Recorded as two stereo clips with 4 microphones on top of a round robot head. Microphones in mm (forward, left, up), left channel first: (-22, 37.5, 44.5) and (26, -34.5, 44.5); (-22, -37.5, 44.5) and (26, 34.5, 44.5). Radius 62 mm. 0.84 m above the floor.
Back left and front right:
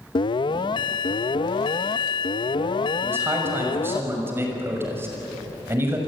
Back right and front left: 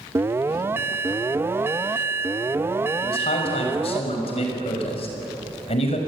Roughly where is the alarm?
Behind left.